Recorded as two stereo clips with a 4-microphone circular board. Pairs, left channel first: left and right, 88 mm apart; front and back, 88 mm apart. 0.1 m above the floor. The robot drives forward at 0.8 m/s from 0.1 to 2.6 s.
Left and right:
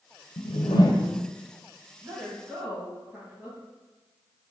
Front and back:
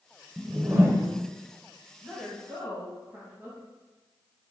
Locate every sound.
0.4 s a whoosh: 90° left, 0.6 m; by 1.2 s 140° left, 0.8 m
2.0 s a woman speaking: 110° right, 1.3 m; by 3.6 s 140° right, 1.5 m